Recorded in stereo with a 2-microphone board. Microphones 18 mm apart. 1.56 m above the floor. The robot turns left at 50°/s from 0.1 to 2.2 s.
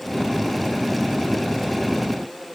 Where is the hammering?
No hammering in this recording.